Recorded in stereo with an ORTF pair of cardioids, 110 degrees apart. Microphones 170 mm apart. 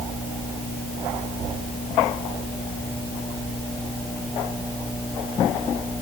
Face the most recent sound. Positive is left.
No sound to turn to.